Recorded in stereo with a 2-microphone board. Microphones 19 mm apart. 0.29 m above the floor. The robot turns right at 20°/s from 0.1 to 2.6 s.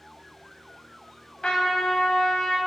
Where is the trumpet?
60° left (ahead or behind), 0.6 m; by 2.6 s 45° left (ahead or behind), 0.6 m.